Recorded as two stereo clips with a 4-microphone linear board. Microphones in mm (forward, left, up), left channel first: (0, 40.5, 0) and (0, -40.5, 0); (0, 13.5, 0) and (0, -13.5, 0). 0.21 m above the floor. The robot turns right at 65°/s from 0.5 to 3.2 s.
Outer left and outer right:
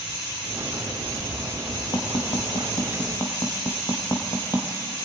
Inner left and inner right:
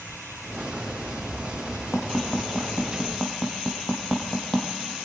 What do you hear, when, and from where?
1.9 s tapping: 60° left (ahead or behind), 3 m; by 4.7 s 40° left (ahead or behind), 3 m